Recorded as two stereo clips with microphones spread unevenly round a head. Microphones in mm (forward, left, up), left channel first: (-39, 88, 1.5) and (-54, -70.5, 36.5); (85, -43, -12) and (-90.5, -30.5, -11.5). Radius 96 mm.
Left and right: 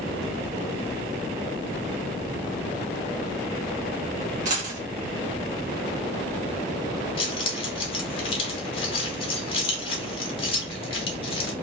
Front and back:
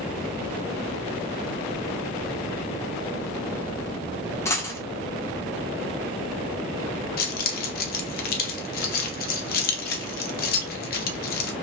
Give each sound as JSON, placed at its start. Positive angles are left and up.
{"t": 4.5, "sound": "a dropped coin", "azimuth_deg": -75, "distance_m": 1.1}
{"t": 7.2, "sound": "keys jangling", "azimuth_deg": 15, "distance_m": 0.7}